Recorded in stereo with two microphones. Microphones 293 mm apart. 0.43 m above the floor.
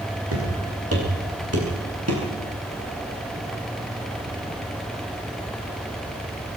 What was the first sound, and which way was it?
Footsteps, 50° right (ahead or behind).